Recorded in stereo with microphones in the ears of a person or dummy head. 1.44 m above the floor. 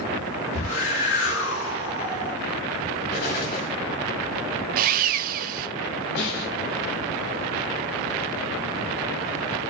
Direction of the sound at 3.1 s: 55° left (ahead or behind).